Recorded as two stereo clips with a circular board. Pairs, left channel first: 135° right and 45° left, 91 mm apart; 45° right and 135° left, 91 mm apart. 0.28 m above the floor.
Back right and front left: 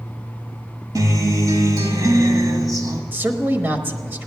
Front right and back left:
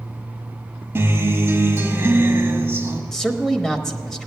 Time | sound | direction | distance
0.9 | a guitar | 75° left | 1.4 m
3.1 | a man speaking | 30° left | 1.0 m